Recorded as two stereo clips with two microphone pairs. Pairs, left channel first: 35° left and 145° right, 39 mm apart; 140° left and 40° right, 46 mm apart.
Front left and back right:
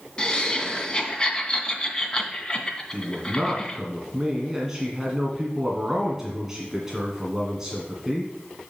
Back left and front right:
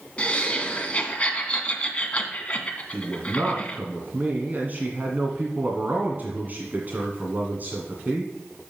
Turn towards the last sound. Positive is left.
turn(degrees=-70)